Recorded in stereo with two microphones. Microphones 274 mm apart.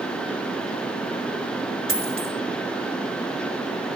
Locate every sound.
1.9 s a dropped coin: 50° left (ahead or behind), 2.5 m